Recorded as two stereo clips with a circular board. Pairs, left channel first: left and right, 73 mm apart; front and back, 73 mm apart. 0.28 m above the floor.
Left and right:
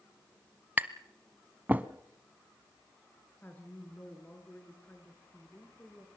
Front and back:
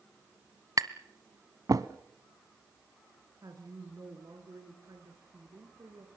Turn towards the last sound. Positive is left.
turn(degrees=155)